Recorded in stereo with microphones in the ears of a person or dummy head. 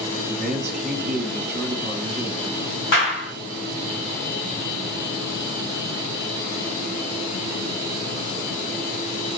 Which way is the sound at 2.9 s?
70° left (ahead or behind).